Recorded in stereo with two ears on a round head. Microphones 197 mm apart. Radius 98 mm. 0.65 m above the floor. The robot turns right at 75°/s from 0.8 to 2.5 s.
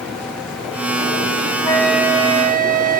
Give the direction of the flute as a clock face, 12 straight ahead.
7 o'clock.